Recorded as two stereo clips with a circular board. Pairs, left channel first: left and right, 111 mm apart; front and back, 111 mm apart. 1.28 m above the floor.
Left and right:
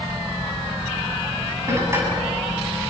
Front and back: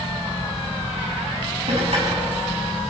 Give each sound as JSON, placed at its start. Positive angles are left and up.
{"t": 1.7, "sound": "dishes clattering", "azimuth_deg": -155, "distance_m": 7.0}